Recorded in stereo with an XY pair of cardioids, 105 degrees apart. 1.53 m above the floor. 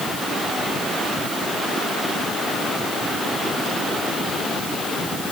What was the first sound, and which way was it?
Only background noise.